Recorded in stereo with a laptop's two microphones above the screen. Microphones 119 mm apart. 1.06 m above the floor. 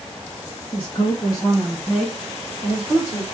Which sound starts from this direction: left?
A woman speaking, at 0.7 s.